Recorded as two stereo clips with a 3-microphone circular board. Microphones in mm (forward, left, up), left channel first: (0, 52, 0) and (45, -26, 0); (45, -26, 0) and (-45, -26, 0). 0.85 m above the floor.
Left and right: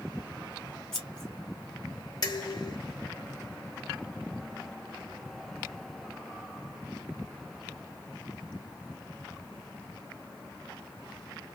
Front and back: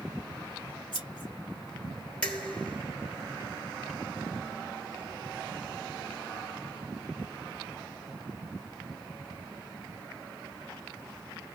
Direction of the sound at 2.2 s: 75° left.